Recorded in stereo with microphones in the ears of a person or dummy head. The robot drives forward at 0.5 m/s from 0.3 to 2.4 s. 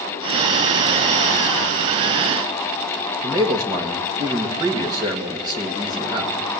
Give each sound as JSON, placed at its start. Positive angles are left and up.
{"t": 3.2, "sound": "a man speaking", "side_deg": -20, "distance_m": 2.0}